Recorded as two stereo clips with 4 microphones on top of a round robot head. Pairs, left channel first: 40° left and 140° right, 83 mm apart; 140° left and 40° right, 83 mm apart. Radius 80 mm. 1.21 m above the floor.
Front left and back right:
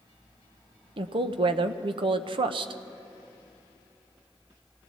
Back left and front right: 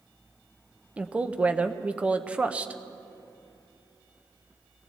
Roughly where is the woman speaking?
Behind right.